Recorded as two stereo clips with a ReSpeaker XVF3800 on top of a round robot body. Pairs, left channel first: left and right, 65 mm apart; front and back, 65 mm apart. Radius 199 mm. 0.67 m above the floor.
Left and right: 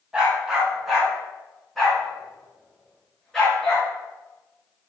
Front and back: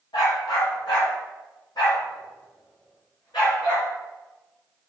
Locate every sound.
0.1 s a dog barking: 15° right, 1.7 m; by 3.9 s 5° left, 4 m